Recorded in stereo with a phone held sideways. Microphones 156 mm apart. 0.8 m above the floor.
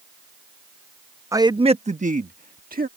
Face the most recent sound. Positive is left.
turn(degrees=-70)  # may be behind; listen again after turning